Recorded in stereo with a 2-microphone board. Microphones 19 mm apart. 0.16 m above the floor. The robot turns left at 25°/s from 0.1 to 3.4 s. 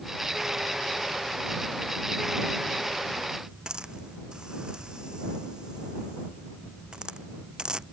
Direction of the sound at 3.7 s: 50° right (ahead or behind).